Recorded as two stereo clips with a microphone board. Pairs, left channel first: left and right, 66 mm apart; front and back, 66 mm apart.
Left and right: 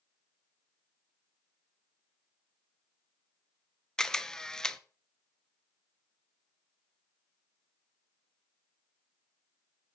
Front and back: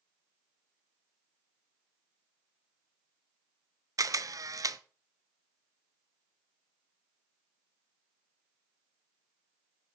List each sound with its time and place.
4.0 s a camera shutter: 170° left, 0.6 m